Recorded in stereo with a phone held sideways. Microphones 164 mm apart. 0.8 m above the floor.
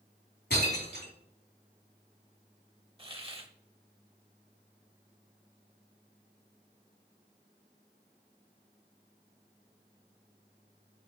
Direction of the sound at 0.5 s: 75° left (ahead or behind).